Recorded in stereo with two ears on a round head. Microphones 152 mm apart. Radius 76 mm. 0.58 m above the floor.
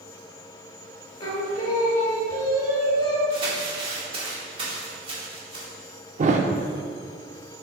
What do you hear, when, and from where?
1.2 s singing: 25° left (ahead or behind), 1.2 m
3.3 s crumpling: 30° right (ahead or behind), 1.8 m
6.2 s a thud: 45° right (ahead or behind), 0.6 m